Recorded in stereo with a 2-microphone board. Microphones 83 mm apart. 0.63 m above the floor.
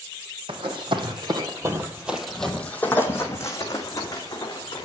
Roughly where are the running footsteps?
Right.